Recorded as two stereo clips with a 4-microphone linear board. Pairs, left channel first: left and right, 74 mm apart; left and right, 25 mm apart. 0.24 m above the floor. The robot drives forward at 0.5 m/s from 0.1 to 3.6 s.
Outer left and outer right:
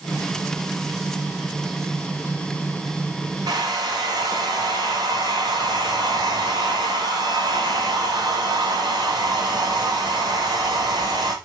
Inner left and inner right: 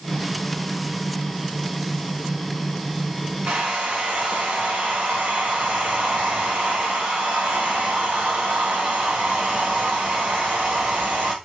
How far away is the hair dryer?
About 4 m.